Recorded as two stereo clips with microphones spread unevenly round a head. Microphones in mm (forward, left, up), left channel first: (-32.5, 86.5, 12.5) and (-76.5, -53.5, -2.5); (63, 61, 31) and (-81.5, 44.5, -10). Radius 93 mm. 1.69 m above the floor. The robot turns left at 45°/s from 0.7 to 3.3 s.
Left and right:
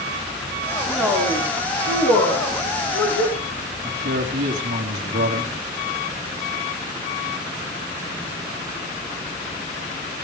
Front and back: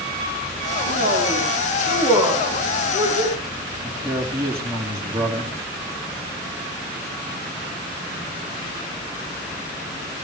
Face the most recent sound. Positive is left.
turn(degrees=-90)